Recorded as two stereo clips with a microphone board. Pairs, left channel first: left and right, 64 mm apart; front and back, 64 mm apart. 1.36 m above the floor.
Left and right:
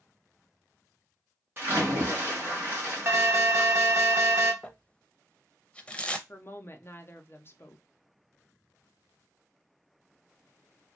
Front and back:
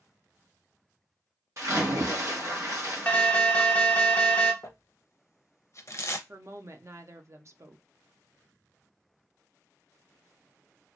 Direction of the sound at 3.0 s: 65° right.